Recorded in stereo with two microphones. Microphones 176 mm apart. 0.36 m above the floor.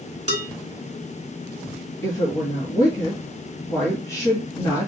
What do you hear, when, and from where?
0.3 s dishes clattering: 40° right (ahead or behind), 3 m
2.0 s a woman speaking: 20° left (ahead or behind), 1.8 m